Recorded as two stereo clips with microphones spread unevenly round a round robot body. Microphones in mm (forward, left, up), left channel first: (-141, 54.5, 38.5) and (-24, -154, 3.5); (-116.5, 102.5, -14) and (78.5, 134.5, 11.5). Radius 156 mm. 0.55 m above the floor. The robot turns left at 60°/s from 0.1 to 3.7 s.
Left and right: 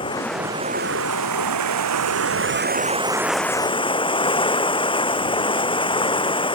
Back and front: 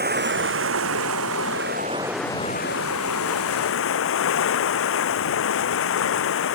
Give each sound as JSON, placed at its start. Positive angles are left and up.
{"t": 0.0, "sound": "running water", "azimuth_deg": 45}